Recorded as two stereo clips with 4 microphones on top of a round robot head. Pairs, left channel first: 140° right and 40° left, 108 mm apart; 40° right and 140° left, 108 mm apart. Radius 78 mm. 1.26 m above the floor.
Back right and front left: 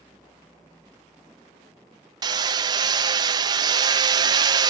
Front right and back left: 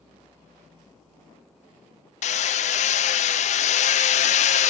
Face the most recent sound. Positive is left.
turn(degrees=-15)